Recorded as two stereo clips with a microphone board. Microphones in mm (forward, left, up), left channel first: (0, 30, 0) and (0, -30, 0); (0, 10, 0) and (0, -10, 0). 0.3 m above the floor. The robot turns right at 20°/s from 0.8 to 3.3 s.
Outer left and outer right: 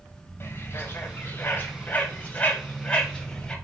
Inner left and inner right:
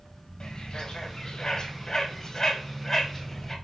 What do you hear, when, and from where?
0.4 s a bird: 40° left (ahead or behind), 1.7 m; by 3.5 s 15° left (ahead or behind), 1.7 m